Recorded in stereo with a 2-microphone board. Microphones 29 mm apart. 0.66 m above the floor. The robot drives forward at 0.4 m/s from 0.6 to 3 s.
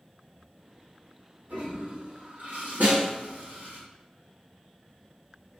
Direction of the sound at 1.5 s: 90° right.